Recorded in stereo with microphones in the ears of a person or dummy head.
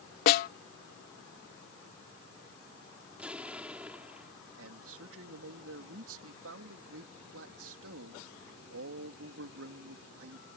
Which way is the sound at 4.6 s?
80° right.